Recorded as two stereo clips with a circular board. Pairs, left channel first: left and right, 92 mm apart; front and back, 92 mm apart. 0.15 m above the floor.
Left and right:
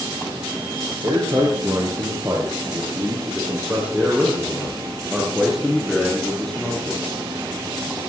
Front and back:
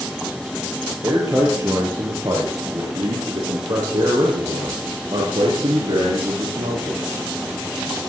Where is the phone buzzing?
No phone buzzing in this recording.